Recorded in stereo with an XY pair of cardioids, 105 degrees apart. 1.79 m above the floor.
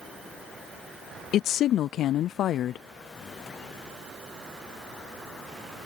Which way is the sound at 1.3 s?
70° left.